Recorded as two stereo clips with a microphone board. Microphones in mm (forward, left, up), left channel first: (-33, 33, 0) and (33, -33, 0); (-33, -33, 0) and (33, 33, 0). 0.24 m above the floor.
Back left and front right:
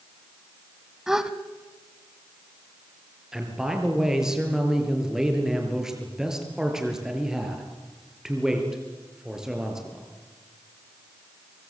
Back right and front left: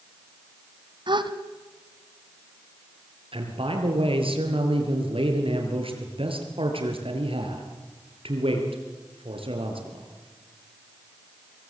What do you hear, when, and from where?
1.1 s a gasp: 40° left, 1.5 m
3.3 s a man speaking: 40° left, 5 m